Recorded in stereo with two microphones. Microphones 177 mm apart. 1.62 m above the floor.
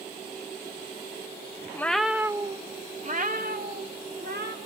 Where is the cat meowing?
15° left (ahead or behind), 0.9 m; by 4.6 s 65° right (ahead or behind), 2.5 m.